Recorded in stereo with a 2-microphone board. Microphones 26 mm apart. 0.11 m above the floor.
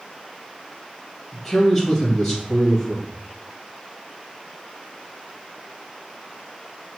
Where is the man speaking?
10° left (ahead or behind), 2.5 m.